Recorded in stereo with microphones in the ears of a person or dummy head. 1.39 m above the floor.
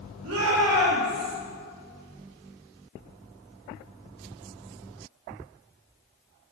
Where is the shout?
85° right, 2.0 m; by 1.3 s 70° right (ahead or behind), 1.7 m.